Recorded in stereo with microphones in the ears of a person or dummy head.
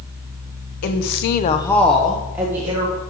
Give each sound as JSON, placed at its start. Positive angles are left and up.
{"t": 0.8, "sound": "a woman speaking", "side_deg": 55, "distance_m": 1.0}